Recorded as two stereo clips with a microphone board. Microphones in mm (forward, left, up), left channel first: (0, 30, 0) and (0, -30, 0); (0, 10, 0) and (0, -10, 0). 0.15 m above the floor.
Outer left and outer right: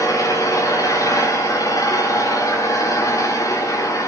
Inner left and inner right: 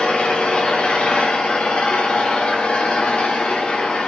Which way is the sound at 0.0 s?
70° left (ahead or behind).